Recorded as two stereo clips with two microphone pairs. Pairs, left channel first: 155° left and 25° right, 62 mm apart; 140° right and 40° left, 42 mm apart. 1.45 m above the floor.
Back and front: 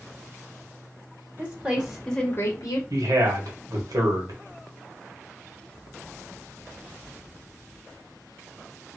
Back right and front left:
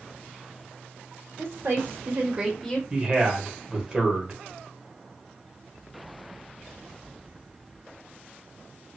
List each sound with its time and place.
1.4 s a woman speaking: 40° left, 1.8 m; by 2.8 s 145° left, 1.0 m
2.9 s a man speaking: 30° right, 1.2 m